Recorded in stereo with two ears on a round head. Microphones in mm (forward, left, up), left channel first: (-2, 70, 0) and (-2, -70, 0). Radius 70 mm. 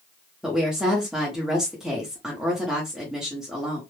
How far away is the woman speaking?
About 0.8 m.